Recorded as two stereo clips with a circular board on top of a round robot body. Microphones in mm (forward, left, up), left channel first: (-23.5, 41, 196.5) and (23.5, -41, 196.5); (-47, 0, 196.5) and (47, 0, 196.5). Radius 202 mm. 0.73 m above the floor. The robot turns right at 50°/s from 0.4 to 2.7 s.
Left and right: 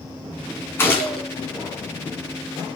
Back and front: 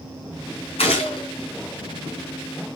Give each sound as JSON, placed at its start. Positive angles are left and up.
{"t": 0.8, "sound": "a gunshot", "azimuth_deg": -175, "distance_m": 3.0}